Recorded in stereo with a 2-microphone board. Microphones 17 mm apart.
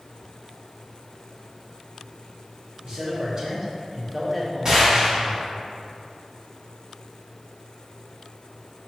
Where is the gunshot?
40° right (ahead or behind), 1.4 m.